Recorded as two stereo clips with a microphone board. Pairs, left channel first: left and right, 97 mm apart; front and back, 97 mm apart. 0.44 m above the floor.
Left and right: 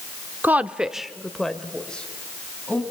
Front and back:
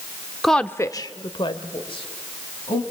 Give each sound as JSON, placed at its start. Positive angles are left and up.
{"t": 0.4, "sound": "a woman speaking", "azimuth_deg": -95, "distance_m": 0.7}